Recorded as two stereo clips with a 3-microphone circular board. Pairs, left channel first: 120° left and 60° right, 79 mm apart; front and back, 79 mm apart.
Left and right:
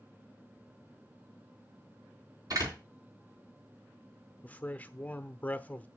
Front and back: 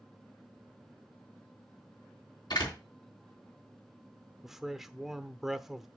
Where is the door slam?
25° right, 3.5 m.